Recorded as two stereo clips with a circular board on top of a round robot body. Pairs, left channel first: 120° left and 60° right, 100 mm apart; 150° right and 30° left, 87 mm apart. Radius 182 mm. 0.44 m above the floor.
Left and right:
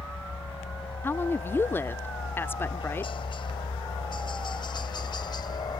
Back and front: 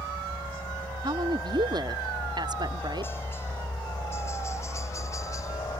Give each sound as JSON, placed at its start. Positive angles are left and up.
{"t": 0.0, "sound": "a helicopter", "azimuth_deg": 135}
{"t": 1.0, "sound": "a woman speaking", "azimuth_deg": 55}